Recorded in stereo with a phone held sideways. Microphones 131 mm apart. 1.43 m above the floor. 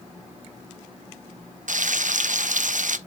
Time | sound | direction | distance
1.7 | frying | 75° right (ahead or behind) | 0.6 m